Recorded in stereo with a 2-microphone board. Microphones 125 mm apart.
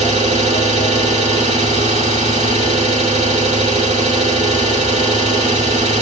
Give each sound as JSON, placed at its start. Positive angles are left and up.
{"t": 0.0, "sound": "an engine running", "side_deg": -65, "distance_m": 1.3}